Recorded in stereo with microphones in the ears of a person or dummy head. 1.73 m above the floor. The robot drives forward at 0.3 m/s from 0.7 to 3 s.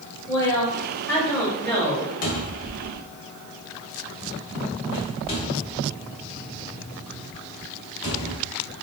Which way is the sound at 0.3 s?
15° left (ahead or behind).